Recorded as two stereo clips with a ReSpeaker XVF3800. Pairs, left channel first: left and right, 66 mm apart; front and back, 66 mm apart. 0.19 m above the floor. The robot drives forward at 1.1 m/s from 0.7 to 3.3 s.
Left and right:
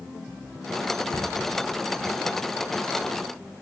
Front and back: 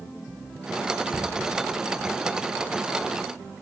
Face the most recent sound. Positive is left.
turn(degrees=155)